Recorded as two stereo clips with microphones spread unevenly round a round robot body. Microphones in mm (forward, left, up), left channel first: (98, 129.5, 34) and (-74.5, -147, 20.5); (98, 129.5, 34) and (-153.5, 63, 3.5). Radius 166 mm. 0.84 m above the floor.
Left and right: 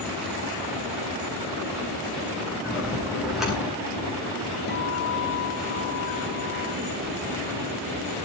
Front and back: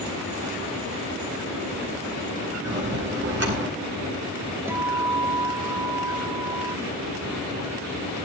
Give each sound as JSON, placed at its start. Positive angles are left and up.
{"t": 2.6, "sound": "a bell", "azimuth_deg": 150, "distance_m": 9.5}
{"t": 4.7, "sound": "a guitar", "azimuth_deg": 110, "distance_m": 0.7}